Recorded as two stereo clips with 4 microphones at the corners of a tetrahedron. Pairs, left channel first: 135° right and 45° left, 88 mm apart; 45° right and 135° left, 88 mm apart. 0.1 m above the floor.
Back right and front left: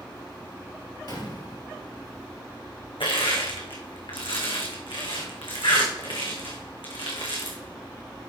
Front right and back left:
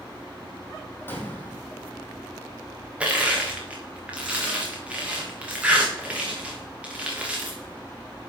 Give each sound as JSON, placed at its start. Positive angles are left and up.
{"t": 1.1, "sound": "a gunshot", "azimuth_deg": -105, "distance_m": 2.0}
{"t": 3.0, "sound": "crushing", "azimuth_deg": -150, "distance_m": 2.5}